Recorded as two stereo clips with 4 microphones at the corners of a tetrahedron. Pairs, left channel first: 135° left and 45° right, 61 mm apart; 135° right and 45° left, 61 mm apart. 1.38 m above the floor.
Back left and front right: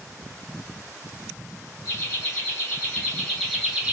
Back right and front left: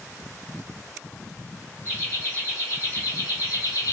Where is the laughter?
Straight behind, 1.5 m; by 3.9 s 115° right, 0.7 m.